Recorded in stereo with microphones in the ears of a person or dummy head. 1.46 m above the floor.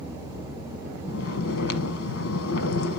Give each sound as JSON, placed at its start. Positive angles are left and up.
{"t": 1.1, "sound": "snoring", "side_deg": 80, "distance_m": 1.1}